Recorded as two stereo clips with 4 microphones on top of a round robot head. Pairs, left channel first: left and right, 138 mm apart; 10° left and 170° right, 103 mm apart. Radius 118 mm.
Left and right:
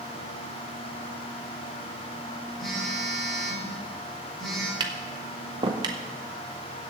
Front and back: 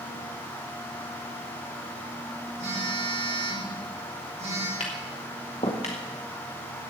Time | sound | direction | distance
2.6 | a phone buzzing | 175° left | 4 m
4.8 | tapping | 40° right | 0.8 m